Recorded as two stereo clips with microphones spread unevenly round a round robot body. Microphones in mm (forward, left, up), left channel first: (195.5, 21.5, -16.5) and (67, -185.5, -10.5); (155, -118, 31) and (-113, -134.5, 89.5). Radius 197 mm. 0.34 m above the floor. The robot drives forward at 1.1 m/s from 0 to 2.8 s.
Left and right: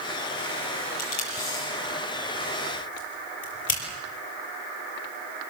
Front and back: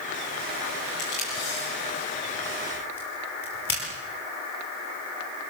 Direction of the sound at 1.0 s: 70° left.